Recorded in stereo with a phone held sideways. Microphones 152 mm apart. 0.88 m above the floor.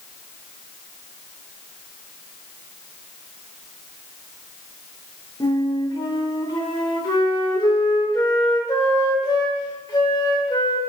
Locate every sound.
5.4 s a flute: 25° left (ahead or behind), 0.6 m